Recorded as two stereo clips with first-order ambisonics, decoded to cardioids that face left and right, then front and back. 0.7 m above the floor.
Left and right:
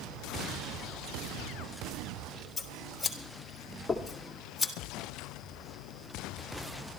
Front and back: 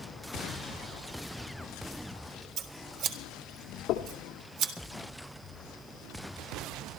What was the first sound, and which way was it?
Scissors, 170° left.